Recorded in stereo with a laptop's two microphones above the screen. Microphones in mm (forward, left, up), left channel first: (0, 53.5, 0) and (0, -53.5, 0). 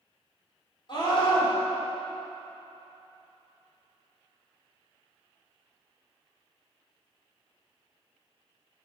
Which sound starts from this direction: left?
A scream, at 0.9 s.